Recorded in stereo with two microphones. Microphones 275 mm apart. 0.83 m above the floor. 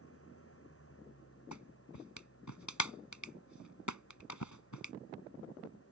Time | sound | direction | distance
0.0 | an engine running | 50° left (ahead or behind) | ?
1.5 | a clap | 90° left | ?